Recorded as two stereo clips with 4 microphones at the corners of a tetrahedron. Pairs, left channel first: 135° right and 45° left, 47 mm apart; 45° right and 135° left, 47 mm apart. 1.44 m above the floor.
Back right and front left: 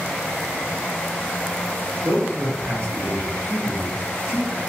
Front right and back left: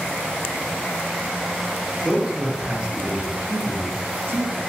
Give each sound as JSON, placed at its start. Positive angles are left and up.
{"t": 2.0, "sound": "a man speaking", "azimuth_deg": 50, "distance_m": 1.2}